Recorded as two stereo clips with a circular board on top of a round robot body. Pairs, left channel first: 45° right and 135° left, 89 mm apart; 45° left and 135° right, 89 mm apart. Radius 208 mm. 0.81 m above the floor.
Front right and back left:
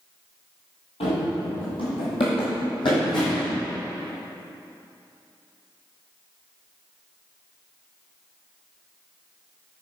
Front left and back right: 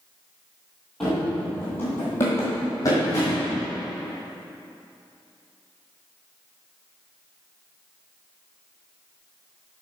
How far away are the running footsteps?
About 1.3 m.